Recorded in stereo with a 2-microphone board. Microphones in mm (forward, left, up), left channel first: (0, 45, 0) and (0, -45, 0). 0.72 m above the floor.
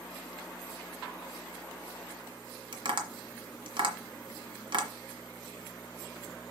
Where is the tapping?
65° right (ahead or behind), 1.6 m.